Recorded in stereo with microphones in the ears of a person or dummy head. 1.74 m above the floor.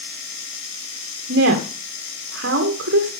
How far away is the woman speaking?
About 2.5 m.